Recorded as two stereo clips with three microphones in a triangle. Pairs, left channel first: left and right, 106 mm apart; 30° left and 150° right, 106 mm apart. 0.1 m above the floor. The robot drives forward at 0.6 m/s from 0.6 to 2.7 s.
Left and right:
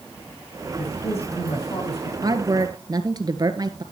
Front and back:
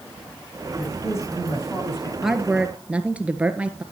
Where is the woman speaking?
65° right, 1.7 m; by 3.8 s 80° right, 1.6 m.